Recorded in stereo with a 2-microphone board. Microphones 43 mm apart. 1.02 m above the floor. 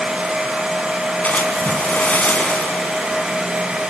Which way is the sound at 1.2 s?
35° left (ahead or behind).